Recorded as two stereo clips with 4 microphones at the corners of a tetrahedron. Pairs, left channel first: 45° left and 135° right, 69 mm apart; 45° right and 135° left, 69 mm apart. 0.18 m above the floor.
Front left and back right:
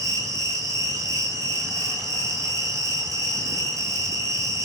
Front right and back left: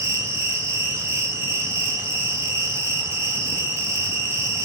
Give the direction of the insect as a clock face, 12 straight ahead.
6 o'clock.